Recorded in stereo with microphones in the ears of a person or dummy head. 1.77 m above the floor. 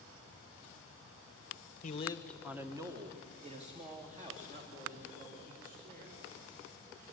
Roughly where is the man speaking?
Left.